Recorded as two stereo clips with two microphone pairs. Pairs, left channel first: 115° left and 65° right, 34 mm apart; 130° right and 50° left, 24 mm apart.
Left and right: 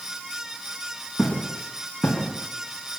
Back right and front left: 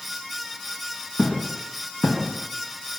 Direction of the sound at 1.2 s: 160° right.